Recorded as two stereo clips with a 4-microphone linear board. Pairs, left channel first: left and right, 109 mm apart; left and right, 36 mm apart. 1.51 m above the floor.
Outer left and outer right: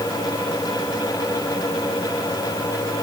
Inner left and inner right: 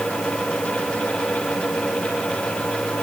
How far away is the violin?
No violin in this recording.